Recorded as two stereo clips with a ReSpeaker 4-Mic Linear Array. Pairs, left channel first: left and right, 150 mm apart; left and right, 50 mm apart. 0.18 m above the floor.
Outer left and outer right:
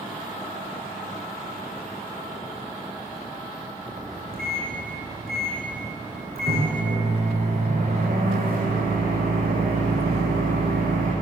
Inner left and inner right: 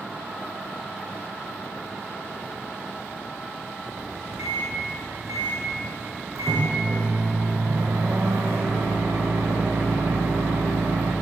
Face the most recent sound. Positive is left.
turn(degrees=-85)